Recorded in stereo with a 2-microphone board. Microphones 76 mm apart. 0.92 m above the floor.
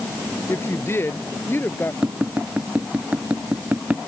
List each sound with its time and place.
0.5 s a woman speaking: 35° left (ahead or behind); by 1.9 s 30° left (ahead or behind)
2.0 s tapping: 20° right (ahead or behind)